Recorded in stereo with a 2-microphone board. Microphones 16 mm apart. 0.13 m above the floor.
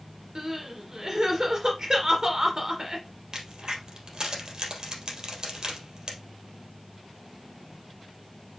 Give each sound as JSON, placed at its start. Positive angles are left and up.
{"t": 0.3, "sound": "crying", "side_deg": -45, "distance_m": 2.5}
{"t": 3.3, "sound": "a crack", "side_deg": -50, "distance_m": 3.0}